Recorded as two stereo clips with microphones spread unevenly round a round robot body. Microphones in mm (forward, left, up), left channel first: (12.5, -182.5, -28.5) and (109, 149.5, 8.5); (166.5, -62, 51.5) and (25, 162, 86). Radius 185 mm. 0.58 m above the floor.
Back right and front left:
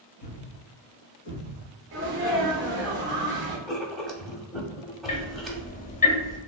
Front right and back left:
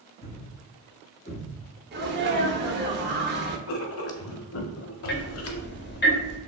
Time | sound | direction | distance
0.2 | a thud | 145° right | 1.7 m
1.9 | a sneeze | 105° left | 0.8 m
3.7 | writing | 15° right | 0.6 m
5.1 | ticking | 50° right | 0.8 m